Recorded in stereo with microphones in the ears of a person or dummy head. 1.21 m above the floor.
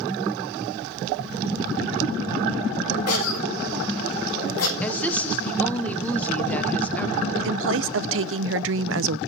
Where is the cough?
85° left, 4 m.